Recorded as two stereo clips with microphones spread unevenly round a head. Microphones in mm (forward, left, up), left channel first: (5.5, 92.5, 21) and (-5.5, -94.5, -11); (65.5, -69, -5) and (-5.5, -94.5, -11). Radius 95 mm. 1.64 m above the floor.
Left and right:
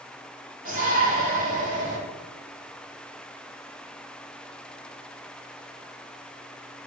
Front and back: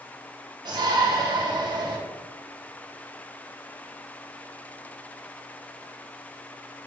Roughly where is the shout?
Behind right.